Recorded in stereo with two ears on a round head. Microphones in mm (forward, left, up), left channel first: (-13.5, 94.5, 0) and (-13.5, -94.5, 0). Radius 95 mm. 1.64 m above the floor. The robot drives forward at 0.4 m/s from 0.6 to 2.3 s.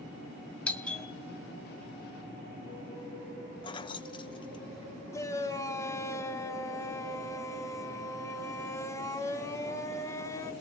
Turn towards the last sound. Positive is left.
turn(degrees=15)  # may be behind; listen again after turning